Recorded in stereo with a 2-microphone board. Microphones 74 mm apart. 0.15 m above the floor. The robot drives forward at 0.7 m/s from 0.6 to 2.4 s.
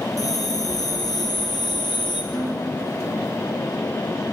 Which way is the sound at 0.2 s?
55° left (ahead or behind).